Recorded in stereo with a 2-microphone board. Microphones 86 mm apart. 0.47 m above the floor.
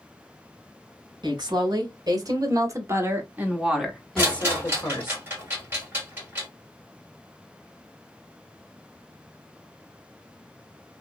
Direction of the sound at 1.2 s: 60° right (ahead or behind).